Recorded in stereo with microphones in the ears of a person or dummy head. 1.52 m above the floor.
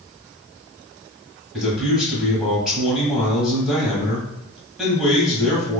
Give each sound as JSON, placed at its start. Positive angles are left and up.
{"t": 1.5, "sound": "a man speaking", "side_deg": -5, "distance_m": 1.4}